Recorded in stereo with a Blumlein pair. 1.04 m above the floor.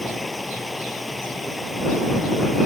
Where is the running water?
10° left.